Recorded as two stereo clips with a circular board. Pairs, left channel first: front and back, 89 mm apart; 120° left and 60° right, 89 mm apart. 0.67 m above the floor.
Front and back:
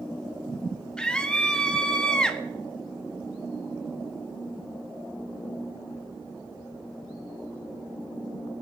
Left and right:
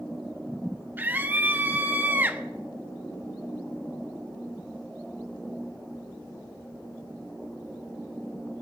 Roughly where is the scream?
Ahead right.